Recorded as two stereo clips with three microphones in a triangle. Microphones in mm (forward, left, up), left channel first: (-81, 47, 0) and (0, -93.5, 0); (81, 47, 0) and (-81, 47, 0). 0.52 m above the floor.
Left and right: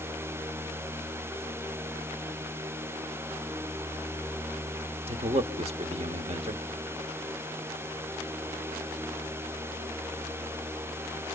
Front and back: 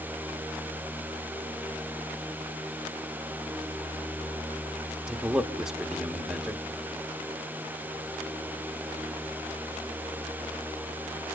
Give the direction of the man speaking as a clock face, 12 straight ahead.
3 o'clock.